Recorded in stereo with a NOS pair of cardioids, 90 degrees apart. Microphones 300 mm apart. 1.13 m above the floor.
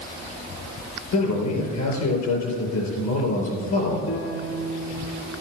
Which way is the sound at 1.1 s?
65° left.